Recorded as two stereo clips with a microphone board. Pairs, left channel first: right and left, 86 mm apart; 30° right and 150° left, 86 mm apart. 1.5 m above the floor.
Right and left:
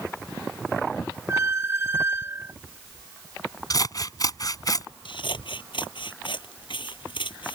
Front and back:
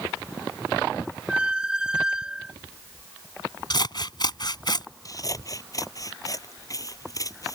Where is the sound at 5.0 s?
75° right.